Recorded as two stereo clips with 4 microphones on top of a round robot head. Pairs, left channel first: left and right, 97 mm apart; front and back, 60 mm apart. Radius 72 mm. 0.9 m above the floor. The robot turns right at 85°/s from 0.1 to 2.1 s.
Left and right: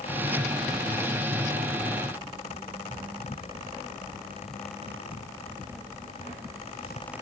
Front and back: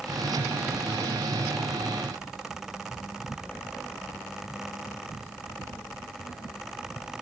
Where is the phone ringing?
I don't hear a phone ringing.